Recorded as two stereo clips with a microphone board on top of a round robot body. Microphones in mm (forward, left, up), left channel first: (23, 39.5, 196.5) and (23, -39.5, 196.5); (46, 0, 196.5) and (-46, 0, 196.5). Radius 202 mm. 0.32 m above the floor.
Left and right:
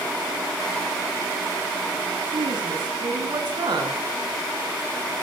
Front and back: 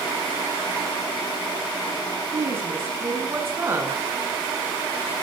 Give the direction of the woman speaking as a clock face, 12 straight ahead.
4 o'clock.